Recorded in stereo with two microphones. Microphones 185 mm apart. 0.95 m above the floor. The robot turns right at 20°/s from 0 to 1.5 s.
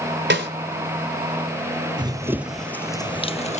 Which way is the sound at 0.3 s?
75° right (ahead or behind).